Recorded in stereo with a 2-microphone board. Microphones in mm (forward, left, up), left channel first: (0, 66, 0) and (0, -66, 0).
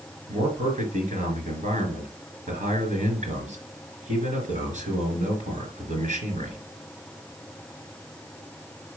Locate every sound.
0.3 s a man speaking: 65° right (ahead or behind), 3.5 m